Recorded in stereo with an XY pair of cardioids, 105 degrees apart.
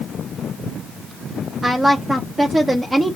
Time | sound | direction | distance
1.6 | a woman speaking | 20° right | 0.9 m